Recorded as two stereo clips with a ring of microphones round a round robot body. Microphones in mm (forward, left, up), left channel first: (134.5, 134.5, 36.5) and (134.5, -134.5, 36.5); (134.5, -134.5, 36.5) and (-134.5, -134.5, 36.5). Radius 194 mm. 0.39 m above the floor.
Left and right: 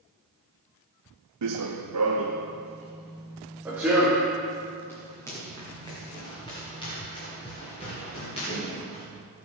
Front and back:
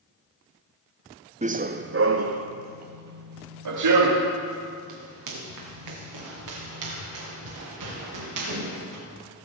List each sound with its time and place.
1.4 s running footsteps: 115° right, 0.9 m; by 9.0 s 165° left, 5.5 m